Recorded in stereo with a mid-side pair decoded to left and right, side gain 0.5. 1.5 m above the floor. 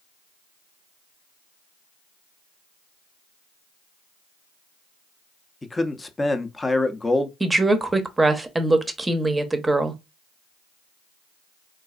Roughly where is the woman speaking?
Ahead.